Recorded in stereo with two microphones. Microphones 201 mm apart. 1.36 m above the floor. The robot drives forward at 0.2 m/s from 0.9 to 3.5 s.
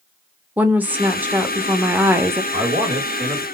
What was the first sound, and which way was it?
A woman speaking, 10° right (ahead or behind).